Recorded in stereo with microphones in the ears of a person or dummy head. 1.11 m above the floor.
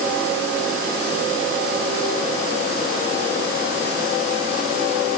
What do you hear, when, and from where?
Only background noise.